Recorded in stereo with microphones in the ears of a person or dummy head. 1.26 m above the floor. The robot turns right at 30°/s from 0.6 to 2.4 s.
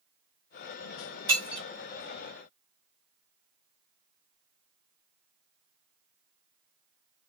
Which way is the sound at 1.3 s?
30° right (ahead or behind).